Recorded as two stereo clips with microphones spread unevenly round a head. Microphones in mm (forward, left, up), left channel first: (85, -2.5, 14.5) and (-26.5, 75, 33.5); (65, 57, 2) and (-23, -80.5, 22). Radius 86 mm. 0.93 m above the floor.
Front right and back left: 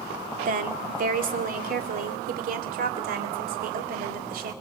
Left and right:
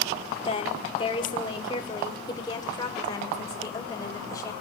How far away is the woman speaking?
About 2 m.